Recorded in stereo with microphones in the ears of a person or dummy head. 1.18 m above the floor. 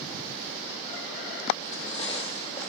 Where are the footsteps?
40° left (ahead or behind), 2.5 m; by 2.7 s 35° left (ahead or behind), 4 m.